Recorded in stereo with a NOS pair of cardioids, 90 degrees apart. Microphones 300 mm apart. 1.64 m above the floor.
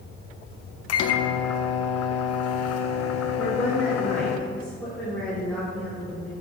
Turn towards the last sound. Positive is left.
turn(degrees=5)